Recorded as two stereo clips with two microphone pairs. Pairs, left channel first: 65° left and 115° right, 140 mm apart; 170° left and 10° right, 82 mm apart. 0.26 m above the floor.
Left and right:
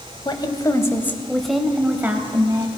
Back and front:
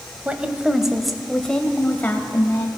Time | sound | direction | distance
0.2 | a woman speaking | 50° left | 1.1 m